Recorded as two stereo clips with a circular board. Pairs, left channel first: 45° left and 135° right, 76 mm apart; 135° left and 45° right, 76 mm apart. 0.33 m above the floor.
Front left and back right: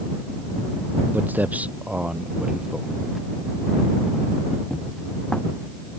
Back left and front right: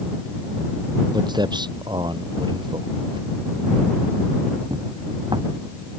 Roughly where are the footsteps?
Right.